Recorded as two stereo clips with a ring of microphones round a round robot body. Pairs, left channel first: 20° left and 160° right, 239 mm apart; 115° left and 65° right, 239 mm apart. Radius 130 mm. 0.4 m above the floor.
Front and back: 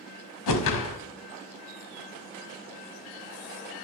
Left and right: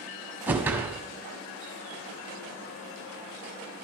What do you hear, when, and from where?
0.5 s a whoosh: 15° left, 0.8 m